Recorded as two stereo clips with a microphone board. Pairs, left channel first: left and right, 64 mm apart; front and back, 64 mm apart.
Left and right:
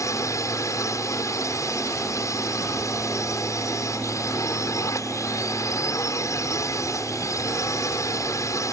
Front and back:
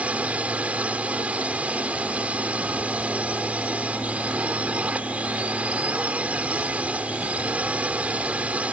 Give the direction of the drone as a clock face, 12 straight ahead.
8 o'clock.